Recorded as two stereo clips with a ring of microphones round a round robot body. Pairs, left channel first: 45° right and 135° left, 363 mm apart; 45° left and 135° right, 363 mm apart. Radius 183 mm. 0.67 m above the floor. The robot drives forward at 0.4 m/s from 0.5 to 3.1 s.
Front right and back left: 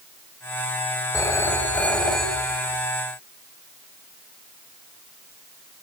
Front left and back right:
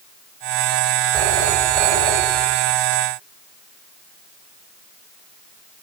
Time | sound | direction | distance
1.1 | a phone ringing | 125° right | 2.5 m